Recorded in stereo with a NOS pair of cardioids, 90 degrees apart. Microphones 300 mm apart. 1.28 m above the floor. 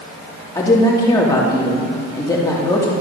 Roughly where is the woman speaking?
Ahead.